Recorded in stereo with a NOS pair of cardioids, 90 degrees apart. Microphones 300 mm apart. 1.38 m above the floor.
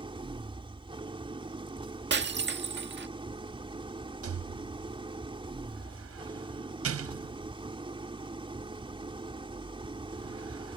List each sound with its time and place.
0.0 s an engine running: 15° right
2.1 s breaking glass: 40° right
4.2 s a rattle: 50° right